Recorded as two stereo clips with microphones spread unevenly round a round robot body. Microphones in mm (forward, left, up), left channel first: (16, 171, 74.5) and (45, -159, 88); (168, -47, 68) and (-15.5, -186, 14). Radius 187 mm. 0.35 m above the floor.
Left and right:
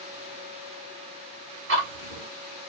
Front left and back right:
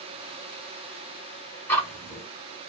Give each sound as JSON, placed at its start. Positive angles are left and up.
{"t": 1.7, "sound": "ticking", "azimuth_deg": -55, "distance_m": 1.8}